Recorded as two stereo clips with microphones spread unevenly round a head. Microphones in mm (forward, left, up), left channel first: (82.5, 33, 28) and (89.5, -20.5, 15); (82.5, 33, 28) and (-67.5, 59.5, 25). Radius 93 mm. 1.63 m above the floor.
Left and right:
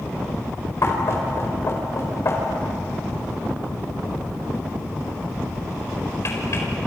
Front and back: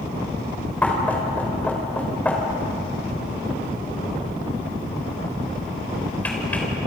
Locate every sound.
0.8 s knocking: 70° left, 5 m